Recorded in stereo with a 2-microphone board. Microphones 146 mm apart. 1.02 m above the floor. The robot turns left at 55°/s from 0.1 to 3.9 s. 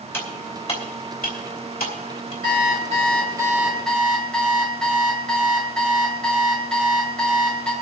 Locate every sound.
0.1 s cutlery clinking: 15° left (ahead or behind), 2.5 m; by 2.3 s 45° left (ahead or behind), 2.5 m
2.4 s an alarm clock: 105° right, 2 m; by 7.7 s 175° left, 2 m